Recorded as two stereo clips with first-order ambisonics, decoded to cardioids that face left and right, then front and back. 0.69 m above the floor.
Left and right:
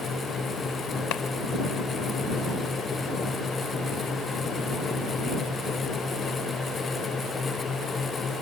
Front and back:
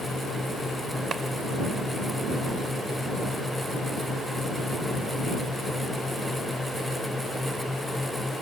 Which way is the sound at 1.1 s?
115° left.